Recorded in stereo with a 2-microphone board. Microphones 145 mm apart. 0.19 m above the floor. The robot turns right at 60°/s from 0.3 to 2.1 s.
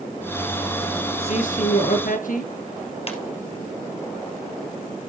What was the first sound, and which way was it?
A man speaking, 50° left.